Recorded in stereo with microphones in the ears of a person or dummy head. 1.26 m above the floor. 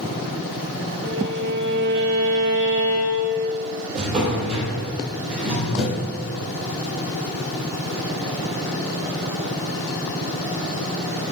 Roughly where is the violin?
Right.